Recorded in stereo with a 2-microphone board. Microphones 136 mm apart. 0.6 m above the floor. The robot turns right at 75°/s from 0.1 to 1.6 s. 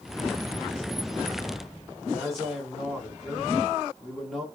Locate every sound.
2.0 s a man speaking: centre (ahead or behind), 1.7 m